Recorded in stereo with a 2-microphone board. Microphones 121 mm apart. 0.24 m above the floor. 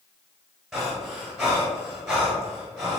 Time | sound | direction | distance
0.7 | breathing | centre (ahead or behind) | 1.8 m